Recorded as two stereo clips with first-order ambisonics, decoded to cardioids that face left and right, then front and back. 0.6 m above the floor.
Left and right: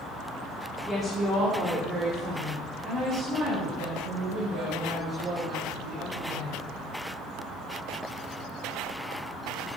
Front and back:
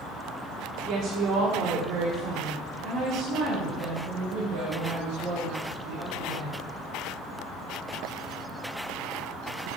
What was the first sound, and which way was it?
A woman speaking, straight behind.